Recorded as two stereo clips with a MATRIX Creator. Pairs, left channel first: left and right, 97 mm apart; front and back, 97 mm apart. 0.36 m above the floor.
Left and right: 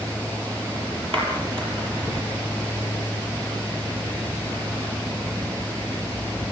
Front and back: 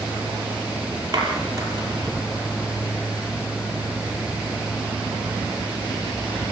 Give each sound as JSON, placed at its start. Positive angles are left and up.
{"t": 1.1, "sound": "a clap", "azimuth_deg": -125, "distance_m": 6.5}